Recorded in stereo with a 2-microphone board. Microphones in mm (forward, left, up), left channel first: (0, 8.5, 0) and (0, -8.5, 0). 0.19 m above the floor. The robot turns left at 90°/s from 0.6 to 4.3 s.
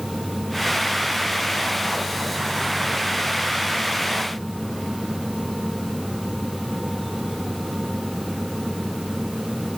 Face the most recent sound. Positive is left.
No sound to turn to.